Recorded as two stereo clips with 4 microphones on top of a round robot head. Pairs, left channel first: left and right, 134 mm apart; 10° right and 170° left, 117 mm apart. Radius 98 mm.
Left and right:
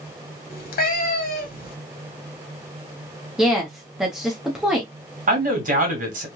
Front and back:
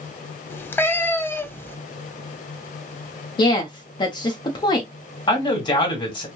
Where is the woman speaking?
5° right, 0.7 m.